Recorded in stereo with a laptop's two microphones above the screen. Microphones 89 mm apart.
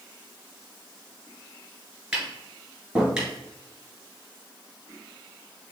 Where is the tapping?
5° right (ahead or behind), 2.5 m.